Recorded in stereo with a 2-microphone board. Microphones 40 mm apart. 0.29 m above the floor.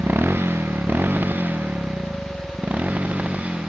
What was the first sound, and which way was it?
A motorcycle, 75° right (ahead or behind).